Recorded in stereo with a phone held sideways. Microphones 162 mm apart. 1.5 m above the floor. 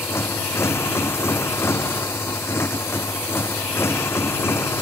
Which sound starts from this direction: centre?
A motorcycle, at 0.0 s.